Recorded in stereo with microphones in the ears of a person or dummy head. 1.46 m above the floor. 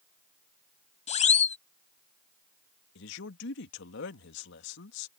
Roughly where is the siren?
Left.